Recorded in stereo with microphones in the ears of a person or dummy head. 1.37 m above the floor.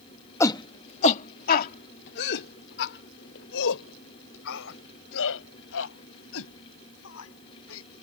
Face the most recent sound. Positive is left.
turn(degrees=75)  # may be behind; listen again after turning